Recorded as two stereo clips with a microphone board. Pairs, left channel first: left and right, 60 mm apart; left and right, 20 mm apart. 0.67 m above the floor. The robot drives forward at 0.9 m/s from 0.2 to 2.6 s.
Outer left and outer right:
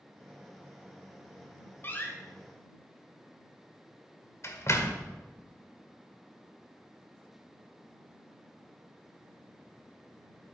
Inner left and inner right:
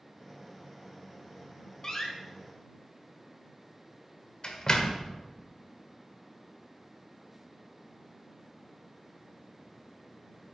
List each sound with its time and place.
1.8 s a door slam: 35° left (ahead or behind), 2.0 m; by 5.1 s 50° left (ahead or behind), 1.5 m